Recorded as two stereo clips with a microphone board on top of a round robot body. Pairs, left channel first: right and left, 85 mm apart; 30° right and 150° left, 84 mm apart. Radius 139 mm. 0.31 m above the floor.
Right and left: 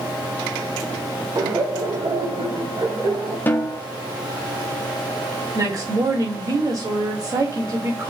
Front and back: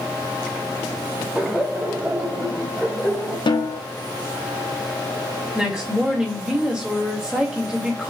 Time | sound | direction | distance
1.4 | laughter | 80° left | 2.5 m
3.5 | a snare drum | 25° right | 1.1 m
5.5 | a woman speaking | 75° left | 2 m